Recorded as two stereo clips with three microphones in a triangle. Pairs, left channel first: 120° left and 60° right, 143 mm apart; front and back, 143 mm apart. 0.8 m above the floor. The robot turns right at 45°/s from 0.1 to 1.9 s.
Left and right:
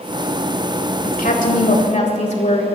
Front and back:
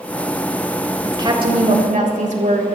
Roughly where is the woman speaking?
Behind left.